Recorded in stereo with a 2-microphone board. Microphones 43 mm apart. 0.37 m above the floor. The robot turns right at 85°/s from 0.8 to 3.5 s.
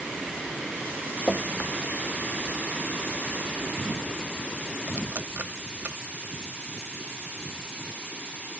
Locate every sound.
1.3 s dripping: 40° left (ahead or behind), 0.6 m; by 6.0 s 45° right (ahead or behind), 0.6 m